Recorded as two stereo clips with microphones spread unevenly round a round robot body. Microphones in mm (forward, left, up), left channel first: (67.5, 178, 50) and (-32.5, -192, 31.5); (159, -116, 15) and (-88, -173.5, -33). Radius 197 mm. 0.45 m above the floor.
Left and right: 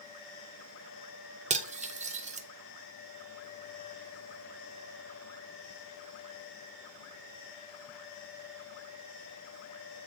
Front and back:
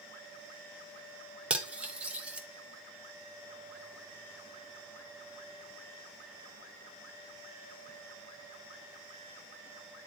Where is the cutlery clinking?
125° right, 0.6 m.